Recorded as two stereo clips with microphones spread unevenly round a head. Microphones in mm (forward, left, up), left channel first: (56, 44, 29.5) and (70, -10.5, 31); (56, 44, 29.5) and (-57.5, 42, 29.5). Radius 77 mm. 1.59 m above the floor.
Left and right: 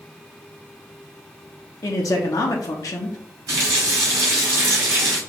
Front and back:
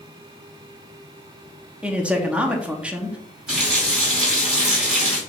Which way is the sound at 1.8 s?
105° left.